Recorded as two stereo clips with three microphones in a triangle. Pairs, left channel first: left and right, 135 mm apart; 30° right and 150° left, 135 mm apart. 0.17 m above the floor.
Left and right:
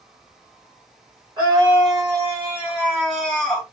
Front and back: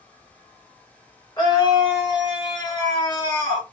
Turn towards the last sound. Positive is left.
turn(degrees=15)